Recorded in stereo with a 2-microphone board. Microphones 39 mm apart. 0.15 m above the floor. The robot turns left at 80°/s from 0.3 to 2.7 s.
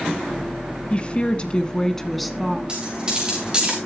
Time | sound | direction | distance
0.9 | a woman speaking | 110° left | 1.1 m
2.7 | a dropped coin | 20° right (ahead or behind) | 6 m